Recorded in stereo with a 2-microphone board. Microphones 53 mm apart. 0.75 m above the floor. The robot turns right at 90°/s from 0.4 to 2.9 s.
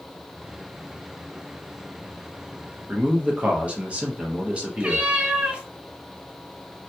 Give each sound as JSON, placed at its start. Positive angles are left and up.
{"t": 2.9, "sound": "a man speaking", "side_deg": -25, "distance_m": 0.7}
{"t": 4.8, "sound": "a cat meowing", "side_deg": -20, "distance_m": 0.7}